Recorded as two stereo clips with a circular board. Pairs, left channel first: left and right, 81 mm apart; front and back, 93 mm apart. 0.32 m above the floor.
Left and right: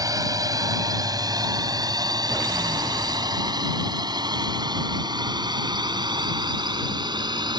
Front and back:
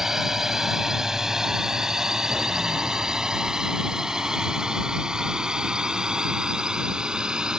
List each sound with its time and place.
0.0 s a drone: 95° right; by 7.6 s 100° right